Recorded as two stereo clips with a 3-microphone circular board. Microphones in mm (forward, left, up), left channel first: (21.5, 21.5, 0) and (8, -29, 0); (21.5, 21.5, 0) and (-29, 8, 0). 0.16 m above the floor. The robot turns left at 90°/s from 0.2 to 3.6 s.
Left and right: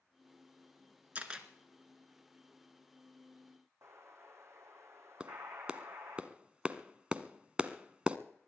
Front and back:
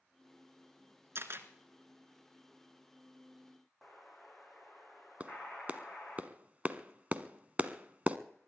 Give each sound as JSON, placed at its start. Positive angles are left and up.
{"t": 1.1, "sound": "a camera shutter", "azimuth_deg": -160, "distance_m": 1.7}
{"t": 3.8, "sound": "an explosion", "azimuth_deg": -75, "distance_m": 3.0}
{"t": 5.2, "sound": "a clap", "azimuth_deg": -150, "distance_m": 0.9}